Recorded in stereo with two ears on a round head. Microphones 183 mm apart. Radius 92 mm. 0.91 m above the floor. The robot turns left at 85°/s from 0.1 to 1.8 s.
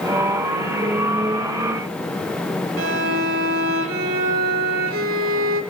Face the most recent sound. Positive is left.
turn(degrees=-70)  # may be behind; listen again after turning